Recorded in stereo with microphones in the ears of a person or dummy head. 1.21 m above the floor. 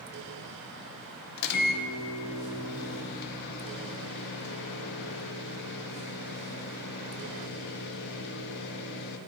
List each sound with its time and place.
1.4 s a microwave: 55° left (ahead or behind), 0.6 m